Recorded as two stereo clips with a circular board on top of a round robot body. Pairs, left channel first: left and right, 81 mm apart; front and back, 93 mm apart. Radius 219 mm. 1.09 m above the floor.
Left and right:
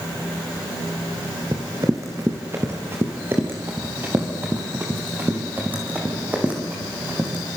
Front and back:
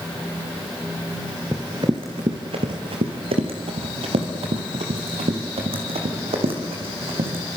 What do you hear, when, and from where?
1.5 s running footsteps: 130° right, 1.1 m; by 7.4 s 165° right, 4.5 m